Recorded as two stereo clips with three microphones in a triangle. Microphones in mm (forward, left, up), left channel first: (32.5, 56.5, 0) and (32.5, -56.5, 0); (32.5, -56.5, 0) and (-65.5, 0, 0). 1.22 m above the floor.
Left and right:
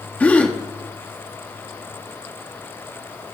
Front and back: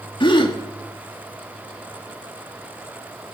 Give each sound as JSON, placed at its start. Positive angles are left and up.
{"t": 0.2, "sound": "a gasp", "azimuth_deg": 15, "distance_m": 1.7}